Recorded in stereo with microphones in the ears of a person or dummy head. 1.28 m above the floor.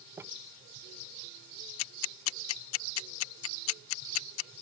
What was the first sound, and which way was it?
Crumpling, 15° right (ahead or behind).